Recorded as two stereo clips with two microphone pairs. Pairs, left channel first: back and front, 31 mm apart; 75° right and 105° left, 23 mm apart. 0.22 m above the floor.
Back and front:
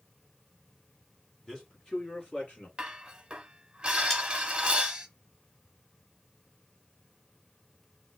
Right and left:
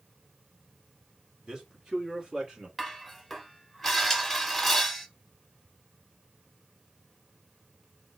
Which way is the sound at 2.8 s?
15° left.